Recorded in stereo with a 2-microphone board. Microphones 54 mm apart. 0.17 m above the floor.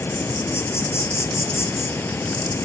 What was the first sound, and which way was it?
An insect, 55° left (ahead or behind).